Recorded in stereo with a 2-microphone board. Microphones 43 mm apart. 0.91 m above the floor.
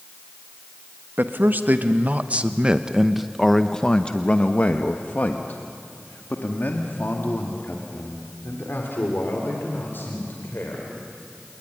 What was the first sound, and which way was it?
A man speaking, 55° right (ahead or behind).